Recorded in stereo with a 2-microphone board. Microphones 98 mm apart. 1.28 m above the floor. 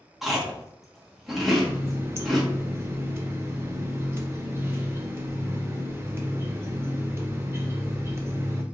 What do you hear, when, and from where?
0.2 s chewing: centre (ahead or behind), 1.1 m
1.5 s a running tap: 25° right (ahead or behind), 0.6 m